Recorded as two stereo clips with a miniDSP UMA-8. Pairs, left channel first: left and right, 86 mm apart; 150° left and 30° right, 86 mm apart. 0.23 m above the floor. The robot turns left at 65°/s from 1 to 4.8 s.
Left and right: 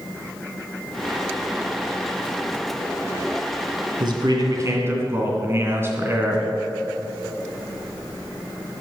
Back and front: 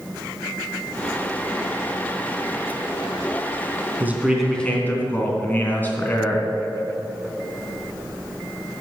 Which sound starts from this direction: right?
A man speaking, at 4.0 s.